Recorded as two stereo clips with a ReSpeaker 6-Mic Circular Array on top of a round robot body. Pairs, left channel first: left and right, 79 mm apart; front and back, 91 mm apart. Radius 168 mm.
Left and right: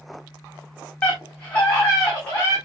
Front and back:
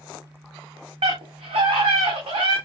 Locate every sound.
1.0 s a scream: 165° left, 3.5 m; by 2.6 s 160° left, 5 m